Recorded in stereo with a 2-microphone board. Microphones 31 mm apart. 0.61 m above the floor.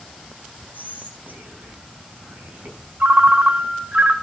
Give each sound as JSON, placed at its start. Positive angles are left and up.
{"t": 0.7, "sound": "whispering", "side_deg": -70, "distance_m": 4.5}
{"t": 3.0, "sound": "a ringtone", "side_deg": -60, "distance_m": 1.4}